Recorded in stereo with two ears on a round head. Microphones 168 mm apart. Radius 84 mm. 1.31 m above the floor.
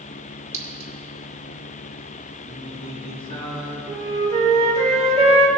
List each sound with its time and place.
0.5 s a clink: 15° right (ahead or behind), 1.2 m
2.4 s singing: 30° left (ahead or behind), 1.8 m
3.9 s a flute: 35° right (ahead or behind), 1.5 m